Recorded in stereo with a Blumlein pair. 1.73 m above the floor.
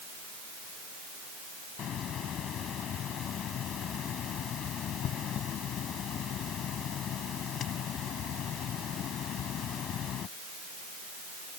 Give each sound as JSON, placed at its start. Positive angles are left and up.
{"t": 1.8, "sound": "a hiss", "azimuth_deg": 30}